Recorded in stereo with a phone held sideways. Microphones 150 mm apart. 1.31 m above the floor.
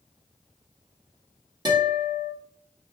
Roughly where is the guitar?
Right.